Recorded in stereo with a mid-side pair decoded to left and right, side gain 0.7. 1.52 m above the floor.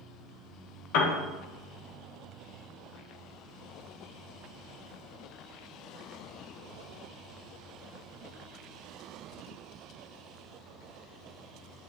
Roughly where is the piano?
Ahead left.